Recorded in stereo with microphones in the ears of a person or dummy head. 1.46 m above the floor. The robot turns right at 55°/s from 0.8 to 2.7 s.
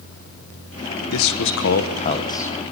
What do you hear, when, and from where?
1.1 s a man speaking: 90° left, 1.2 m; by 2.5 s 170° left, 1.2 m